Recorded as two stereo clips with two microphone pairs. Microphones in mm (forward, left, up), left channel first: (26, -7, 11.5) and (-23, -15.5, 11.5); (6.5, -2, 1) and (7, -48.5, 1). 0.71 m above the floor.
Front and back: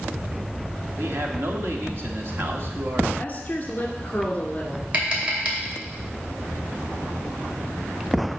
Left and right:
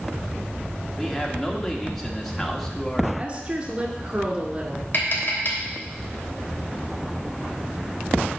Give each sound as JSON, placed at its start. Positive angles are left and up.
{"t": 1.0, "sound": "a man speaking", "azimuth_deg": 175, "distance_m": 1.4}
{"t": 3.2, "sound": "a woman speaking", "azimuth_deg": -40, "distance_m": 2.0}
{"t": 4.9, "sound": "tapping", "azimuth_deg": 135, "distance_m": 3.0}